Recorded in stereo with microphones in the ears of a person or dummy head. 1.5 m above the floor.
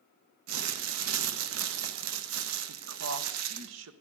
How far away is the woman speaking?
About 1.1 m.